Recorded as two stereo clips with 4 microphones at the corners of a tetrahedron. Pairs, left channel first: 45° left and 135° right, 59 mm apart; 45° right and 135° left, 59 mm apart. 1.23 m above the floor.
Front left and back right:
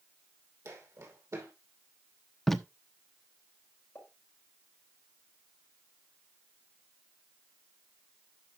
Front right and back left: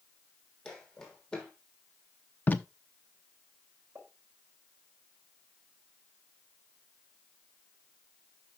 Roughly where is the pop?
Left.